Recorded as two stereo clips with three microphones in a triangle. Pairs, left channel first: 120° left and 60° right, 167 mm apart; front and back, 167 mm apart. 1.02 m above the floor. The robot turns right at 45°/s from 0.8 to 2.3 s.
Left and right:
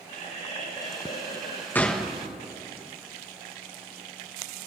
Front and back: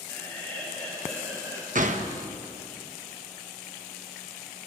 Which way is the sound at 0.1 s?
75° left.